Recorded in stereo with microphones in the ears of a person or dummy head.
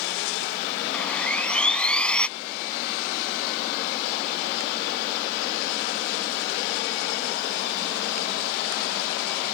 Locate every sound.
0.9 s sawing: 5° left (ahead or behind)